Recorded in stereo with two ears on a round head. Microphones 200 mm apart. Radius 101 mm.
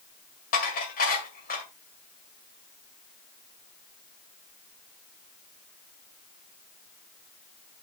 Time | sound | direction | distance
0.5 | dishes clattering | 40° left (ahead or behind) | 2 m